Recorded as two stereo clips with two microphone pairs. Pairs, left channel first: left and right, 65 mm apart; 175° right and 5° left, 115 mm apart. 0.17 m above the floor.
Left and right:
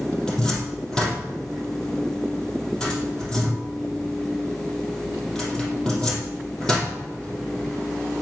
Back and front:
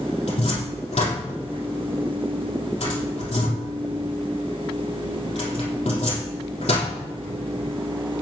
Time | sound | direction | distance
0.3 | a cupboard door | 165° left | 4 m